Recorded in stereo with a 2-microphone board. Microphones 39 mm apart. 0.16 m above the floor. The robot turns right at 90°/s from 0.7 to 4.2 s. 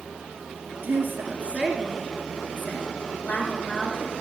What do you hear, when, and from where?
0.8 s a woman speaking: 95° right, 2 m; by 4.1 s 160° right, 2 m